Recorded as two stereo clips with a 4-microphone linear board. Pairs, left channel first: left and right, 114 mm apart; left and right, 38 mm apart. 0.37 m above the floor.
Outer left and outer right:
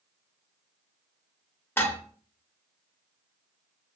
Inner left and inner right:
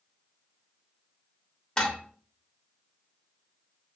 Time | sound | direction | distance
1.8 | dishes clattering | 20° left (ahead or behind) | 0.8 m